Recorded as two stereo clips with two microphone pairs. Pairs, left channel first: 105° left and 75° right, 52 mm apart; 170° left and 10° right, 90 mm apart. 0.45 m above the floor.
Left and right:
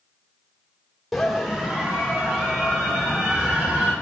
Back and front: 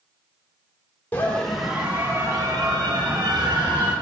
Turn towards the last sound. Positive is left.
turn(degrees=-25)